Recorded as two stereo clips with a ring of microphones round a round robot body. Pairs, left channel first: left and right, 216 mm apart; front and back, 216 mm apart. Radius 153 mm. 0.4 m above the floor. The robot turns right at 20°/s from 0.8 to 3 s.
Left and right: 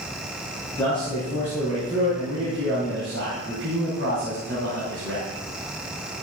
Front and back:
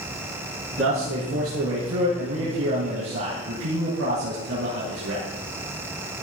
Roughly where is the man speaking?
Behind.